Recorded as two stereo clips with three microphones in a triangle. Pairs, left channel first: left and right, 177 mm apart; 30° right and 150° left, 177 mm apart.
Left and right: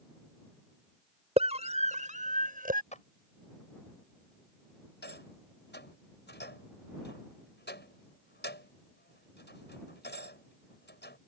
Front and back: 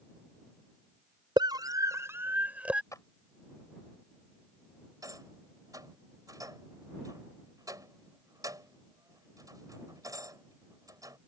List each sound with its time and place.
1.4 s a scream: 145° right; by 2.8 s 125° right
2.9 s a clap: 45° left
5.0 s a rattle: 80° left